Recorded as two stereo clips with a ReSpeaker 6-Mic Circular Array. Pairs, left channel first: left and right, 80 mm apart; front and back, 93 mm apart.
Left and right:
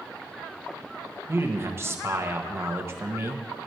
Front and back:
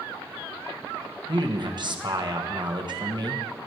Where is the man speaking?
145° right, 1.3 m.